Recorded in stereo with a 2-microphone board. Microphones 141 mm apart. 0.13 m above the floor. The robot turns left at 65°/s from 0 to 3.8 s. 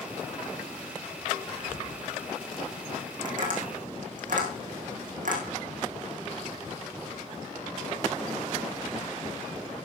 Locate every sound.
1.5 s whispering: 10° left (ahead or behind), 6.5 m; by 1.9 s 15° right (ahead or behind), 6.5 m
3.2 s tapping: 70° right (ahead or behind), 4.5 m